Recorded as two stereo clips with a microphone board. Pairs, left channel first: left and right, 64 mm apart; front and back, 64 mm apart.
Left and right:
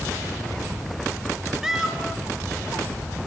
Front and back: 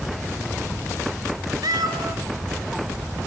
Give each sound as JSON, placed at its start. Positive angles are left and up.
{"t": 1.6, "sound": "a cat meowing", "azimuth_deg": -170, "distance_m": 2.5}